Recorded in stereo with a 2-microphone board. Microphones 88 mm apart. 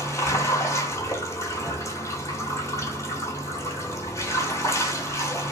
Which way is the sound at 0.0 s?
30° left (ahead or behind).